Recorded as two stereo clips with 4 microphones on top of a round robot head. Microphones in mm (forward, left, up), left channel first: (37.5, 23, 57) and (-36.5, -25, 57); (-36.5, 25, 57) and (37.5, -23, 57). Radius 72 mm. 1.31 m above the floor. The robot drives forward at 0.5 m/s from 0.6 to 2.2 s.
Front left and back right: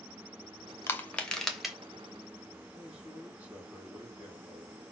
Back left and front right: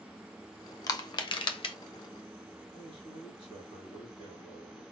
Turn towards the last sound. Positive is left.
turn(degrees=140)